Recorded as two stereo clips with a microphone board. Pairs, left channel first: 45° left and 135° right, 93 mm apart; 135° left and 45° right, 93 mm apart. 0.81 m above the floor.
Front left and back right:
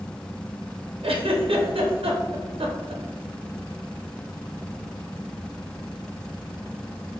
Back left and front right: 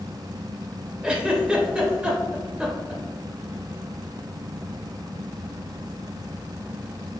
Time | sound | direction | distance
1.0 | a giggle | 125° right | 0.6 m